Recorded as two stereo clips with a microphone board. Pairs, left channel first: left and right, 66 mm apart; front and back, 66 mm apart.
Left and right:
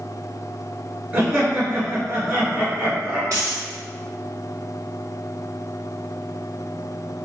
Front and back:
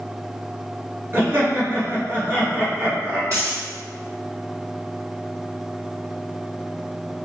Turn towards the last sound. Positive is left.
turn(degrees=-135)